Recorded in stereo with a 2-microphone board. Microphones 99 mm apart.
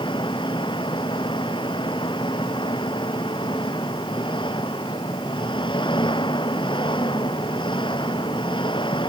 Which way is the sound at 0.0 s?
55° left (ahead or behind).